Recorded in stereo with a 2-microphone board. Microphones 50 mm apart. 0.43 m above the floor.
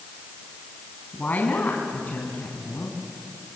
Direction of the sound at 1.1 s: 35° left (ahead or behind).